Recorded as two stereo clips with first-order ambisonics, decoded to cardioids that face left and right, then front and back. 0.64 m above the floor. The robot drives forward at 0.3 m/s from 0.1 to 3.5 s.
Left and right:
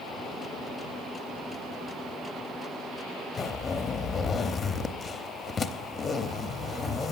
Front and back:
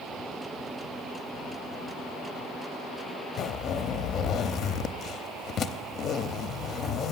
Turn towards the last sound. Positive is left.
turn(degrees=30)